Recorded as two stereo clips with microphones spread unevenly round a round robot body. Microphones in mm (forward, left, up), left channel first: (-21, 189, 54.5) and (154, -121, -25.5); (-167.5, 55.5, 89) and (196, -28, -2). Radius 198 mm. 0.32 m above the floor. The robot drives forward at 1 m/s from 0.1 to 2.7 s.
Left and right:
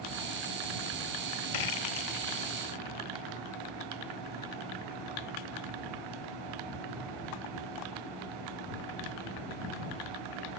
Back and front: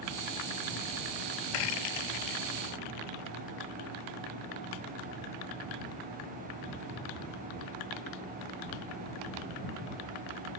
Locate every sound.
1.5 s a rattle: 145° left; by 3.4 s 155° left